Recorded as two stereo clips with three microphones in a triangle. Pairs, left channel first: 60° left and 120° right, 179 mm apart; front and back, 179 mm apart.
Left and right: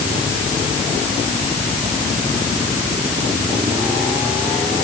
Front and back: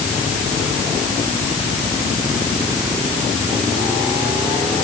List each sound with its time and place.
Only background noise.